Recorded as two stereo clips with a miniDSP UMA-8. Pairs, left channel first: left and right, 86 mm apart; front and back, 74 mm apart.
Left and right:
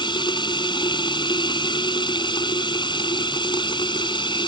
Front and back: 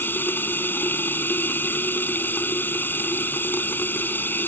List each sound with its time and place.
0.0 s running water: 65° left